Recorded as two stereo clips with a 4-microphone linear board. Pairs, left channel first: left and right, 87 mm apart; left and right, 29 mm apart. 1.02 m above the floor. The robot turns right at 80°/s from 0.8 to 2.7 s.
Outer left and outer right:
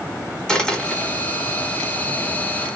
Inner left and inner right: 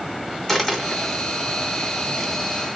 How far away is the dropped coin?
About 1.2 m.